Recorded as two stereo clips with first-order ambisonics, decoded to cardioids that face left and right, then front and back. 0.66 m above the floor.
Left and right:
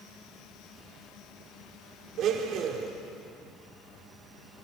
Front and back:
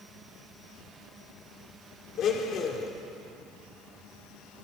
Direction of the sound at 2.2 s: 45° right.